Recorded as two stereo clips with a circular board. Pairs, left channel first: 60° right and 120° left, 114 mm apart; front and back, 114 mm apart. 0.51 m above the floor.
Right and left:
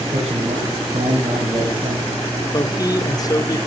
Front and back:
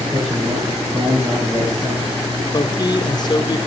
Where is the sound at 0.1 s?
115° left, 4 m.